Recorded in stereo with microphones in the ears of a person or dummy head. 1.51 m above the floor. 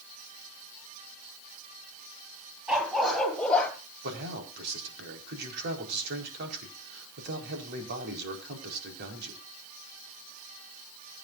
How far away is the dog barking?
About 4 m.